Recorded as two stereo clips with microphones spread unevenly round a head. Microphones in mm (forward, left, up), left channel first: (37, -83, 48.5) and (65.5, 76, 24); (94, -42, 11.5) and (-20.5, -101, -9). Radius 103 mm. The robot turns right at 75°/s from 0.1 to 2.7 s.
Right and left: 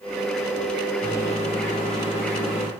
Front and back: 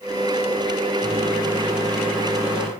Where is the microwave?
175° left, 3 m; by 2.7 s 60° right, 3 m.